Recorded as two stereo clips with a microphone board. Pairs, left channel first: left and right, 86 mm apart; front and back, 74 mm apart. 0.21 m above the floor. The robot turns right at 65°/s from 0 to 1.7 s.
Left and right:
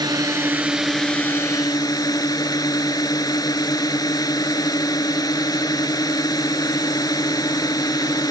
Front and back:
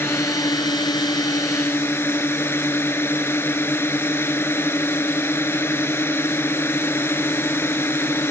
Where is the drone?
55° right; by 8.3 s 55° left.